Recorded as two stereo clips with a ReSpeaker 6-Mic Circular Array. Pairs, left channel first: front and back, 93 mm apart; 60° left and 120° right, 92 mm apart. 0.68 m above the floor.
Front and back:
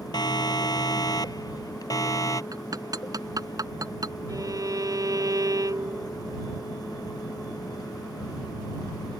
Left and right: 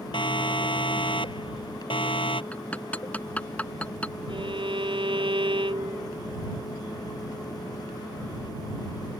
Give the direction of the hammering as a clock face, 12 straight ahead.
8 o'clock.